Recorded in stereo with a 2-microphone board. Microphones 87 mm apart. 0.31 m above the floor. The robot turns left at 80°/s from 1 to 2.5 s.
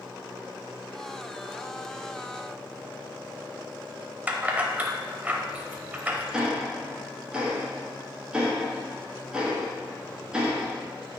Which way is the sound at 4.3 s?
20° right (ahead or behind).